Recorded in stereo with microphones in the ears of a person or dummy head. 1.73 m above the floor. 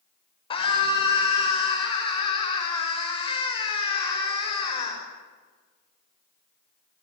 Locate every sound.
0.5 s a scream: 25° left (ahead or behind), 6.5 m